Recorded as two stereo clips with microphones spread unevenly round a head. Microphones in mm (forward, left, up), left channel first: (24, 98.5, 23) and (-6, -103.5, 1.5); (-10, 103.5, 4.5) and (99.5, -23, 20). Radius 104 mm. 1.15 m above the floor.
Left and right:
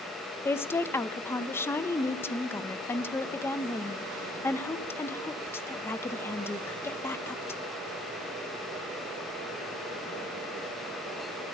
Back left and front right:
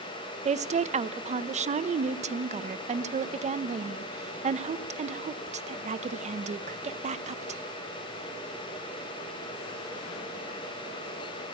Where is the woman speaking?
Straight ahead, 0.9 m.